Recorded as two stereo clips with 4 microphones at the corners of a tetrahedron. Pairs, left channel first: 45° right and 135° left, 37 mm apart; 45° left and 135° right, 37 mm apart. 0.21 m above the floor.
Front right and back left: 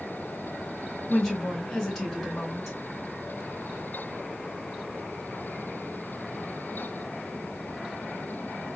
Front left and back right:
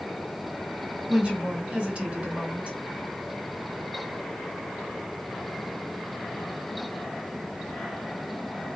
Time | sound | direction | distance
1.1 | a woman speaking | 130° right | 2 m